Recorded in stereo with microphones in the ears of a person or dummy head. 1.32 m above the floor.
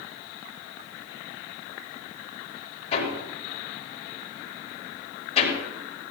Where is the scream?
I don't hear a scream.